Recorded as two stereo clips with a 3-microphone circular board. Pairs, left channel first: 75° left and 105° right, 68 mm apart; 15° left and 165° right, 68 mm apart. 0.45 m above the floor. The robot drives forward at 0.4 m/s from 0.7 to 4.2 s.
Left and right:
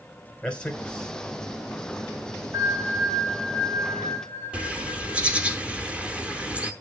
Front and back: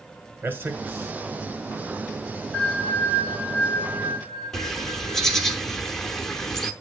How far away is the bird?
About 0.9 m.